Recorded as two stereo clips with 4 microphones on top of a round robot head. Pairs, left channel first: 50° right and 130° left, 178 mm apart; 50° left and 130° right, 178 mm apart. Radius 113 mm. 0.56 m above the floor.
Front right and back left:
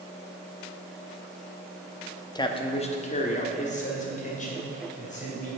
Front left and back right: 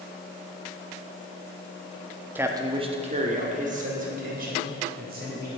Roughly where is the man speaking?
Right.